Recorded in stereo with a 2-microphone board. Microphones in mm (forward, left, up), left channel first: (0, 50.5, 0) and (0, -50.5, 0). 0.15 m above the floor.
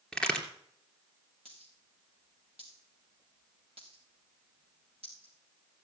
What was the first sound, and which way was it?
A crack, 5° left (ahead or behind).